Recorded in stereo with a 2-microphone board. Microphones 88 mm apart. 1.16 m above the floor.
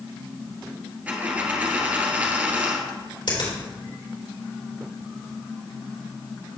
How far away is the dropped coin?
About 1.4 m.